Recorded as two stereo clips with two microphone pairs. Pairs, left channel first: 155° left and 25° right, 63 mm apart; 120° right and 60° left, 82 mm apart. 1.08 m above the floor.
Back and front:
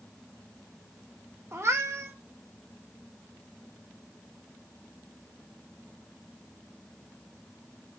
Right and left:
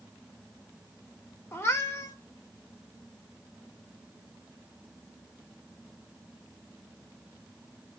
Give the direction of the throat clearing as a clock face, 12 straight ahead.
No throat clearing in this recording.